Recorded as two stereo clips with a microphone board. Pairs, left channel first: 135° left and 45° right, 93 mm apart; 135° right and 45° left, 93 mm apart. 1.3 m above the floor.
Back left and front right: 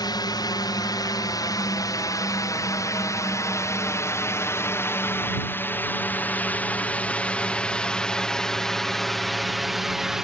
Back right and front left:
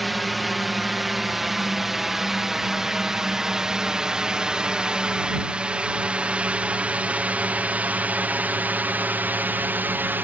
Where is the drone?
135° left; by 10.2 s 30° left.